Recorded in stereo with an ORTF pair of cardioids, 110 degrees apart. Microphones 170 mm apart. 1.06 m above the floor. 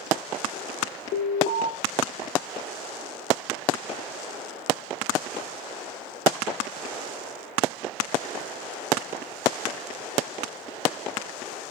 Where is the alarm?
70° left, 4.5 m.